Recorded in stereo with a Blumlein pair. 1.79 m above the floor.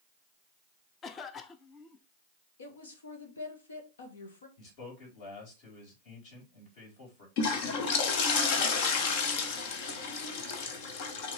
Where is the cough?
25° left, 0.9 m.